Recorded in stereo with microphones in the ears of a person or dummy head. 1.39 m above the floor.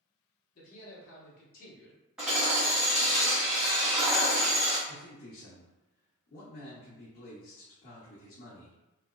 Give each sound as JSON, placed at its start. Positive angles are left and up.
{"t": 0.6, "sound": "a man speaking", "side_deg": 45, "distance_m": 1.6}
{"t": 2.2, "sound": "hammering", "side_deg": 0, "distance_m": 0.8}
{"t": 4.9, "sound": "a man speaking", "side_deg": 45, "distance_m": 0.9}